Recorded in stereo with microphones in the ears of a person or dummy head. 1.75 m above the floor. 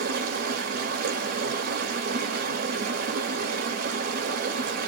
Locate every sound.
0.0 s running water: 55° right (ahead or behind), 0.8 m